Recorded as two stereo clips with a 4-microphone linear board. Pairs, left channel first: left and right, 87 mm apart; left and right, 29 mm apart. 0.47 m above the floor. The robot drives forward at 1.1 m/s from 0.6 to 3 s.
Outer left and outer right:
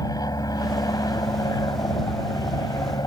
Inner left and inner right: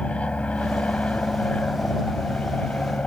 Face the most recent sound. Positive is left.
turn(degrees=45)  # may be behind; listen again after turning